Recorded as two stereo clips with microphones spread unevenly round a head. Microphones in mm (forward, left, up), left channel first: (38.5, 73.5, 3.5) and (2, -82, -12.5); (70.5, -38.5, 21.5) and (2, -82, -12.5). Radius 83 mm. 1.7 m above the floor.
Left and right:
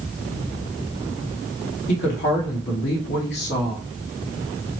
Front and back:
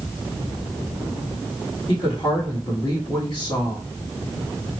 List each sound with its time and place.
1.9 s a woman speaking: 95° left, 1.2 m